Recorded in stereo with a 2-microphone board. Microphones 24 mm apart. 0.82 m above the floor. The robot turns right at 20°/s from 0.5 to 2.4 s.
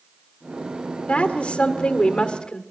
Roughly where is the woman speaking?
Left.